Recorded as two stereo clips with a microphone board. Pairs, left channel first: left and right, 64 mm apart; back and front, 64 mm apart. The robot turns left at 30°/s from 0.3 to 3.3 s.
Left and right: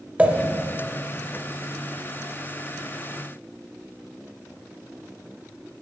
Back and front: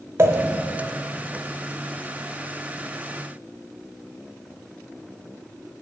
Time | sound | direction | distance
0.2 | a pop | 30° right | 0.7 m